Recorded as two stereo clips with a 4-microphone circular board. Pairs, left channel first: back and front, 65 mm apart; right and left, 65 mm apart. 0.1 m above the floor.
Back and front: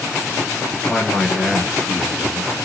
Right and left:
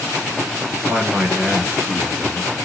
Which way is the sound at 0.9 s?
115° left.